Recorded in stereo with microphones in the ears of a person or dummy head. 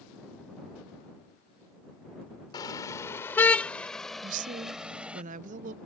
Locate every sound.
2.5 s a car horn: 20° left (ahead or behind); by 5.2 s 10° right (ahead or behind)
4.2 s a woman speaking: 50° right (ahead or behind)